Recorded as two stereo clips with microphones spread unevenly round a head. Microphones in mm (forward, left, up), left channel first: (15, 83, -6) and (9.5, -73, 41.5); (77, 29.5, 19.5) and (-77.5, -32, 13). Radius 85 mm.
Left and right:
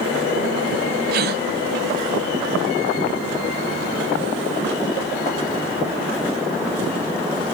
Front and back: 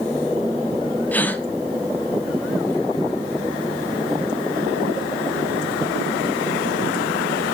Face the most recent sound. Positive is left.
turn(degrees=-60)